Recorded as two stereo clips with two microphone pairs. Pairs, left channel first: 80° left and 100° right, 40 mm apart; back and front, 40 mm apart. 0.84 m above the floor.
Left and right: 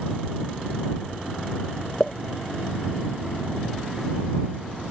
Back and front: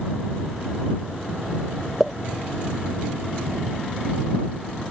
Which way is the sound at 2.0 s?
115° left.